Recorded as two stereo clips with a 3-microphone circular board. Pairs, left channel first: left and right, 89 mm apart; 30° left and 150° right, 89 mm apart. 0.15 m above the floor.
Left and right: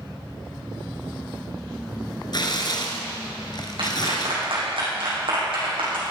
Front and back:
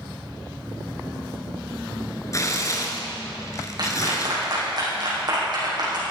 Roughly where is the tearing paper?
Left.